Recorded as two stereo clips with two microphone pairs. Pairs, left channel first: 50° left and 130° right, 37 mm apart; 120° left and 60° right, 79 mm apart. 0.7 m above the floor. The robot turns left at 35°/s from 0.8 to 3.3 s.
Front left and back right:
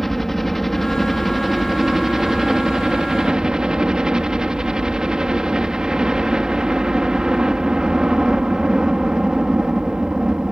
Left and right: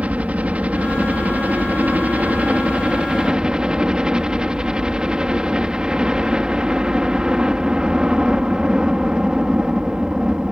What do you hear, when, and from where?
0.0 s a helicopter: 30° right; by 10.5 s 115° right